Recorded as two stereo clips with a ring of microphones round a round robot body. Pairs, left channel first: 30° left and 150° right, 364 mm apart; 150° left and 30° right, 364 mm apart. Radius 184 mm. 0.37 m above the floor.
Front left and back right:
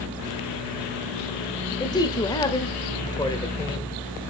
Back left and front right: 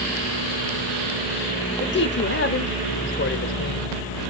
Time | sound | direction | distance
1.8 | a man speaking | 105° left | 1.1 m